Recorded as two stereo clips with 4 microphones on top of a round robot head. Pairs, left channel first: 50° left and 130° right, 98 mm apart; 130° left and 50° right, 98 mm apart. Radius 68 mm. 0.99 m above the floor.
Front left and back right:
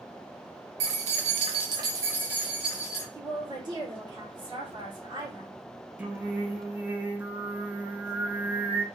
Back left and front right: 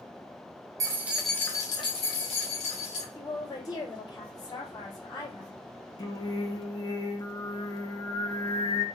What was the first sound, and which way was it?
Keys jangling, 110° right.